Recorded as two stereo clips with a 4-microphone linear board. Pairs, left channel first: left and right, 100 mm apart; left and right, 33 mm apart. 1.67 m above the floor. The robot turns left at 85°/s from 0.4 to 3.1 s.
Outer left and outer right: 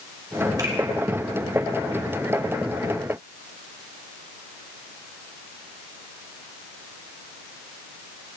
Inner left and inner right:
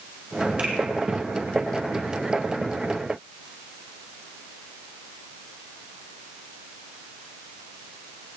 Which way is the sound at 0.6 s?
40° right (ahead or behind).